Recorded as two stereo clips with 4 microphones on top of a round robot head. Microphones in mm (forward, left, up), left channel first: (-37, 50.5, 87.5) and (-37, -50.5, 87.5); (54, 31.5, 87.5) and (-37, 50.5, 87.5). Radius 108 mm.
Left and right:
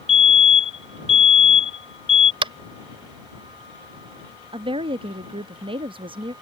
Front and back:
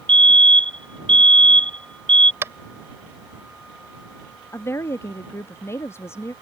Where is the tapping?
120° right.